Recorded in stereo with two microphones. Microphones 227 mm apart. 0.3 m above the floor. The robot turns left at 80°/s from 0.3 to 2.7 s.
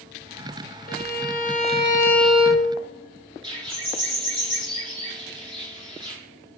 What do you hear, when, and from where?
0.9 s a violin: 110° left, 1.4 m; by 2.7 s 35° right, 1.4 m
3.4 s a bird: 20° right (ahead or behind), 3.5 m